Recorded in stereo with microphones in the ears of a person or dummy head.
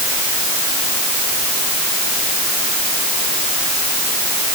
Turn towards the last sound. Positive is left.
No sound to turn to.